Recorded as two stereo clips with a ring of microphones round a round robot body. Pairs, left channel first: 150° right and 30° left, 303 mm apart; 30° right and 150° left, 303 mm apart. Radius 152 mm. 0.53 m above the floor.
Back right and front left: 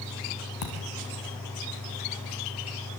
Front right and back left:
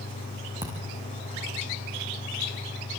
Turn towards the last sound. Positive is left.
turn(degrees=-130)